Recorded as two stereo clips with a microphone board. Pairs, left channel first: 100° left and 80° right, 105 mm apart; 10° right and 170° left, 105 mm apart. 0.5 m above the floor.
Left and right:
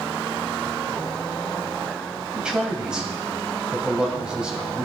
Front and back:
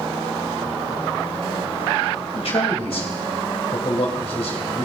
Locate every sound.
2.4 s a man speaking: straight ahead, 3 m